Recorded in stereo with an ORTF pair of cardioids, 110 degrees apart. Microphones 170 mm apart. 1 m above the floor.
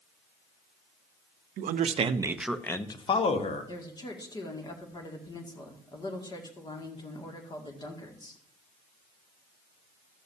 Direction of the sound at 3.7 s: 25° left.